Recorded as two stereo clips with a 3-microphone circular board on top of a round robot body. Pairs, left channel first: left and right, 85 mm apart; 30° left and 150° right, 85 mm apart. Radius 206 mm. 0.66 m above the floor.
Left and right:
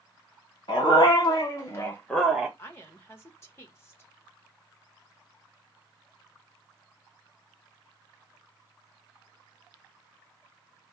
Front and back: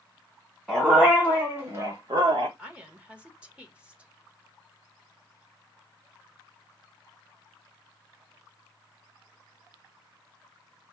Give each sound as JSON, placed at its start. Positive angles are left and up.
{"t": 0.7, "sound": "a dog barking", "azimuth_deg": 125, "distance_m": 1.4}
{"t": 2.6, "sound": "a woman speaking", "azimuth_deg": 140, "distance_m": 1.3}